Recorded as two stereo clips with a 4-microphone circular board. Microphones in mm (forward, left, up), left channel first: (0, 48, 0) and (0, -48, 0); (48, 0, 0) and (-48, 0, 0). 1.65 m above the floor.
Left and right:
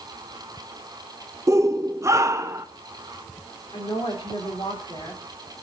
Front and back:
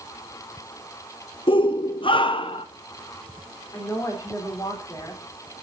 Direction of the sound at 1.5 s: 30° right.